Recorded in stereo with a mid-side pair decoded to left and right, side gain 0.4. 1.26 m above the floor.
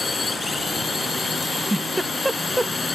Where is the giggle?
15° right.